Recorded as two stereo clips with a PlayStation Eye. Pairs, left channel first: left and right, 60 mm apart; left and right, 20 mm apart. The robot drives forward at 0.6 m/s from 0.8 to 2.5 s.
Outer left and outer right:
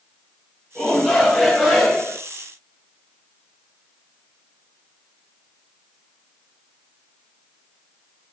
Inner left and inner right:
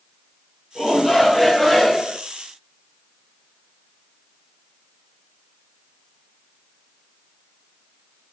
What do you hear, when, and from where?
0.8 s a shout: 5° right (ahead or behind), 4.5 m